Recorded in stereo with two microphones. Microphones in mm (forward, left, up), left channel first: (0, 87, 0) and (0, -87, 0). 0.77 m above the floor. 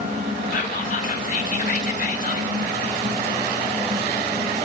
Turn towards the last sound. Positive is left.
turn(degrees=50)  # may be behind; listen again after turning